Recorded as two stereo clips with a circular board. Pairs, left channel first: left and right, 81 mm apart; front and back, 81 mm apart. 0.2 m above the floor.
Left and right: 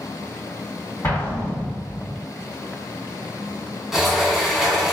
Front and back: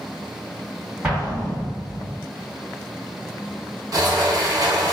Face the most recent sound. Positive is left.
turn(degrees=-175)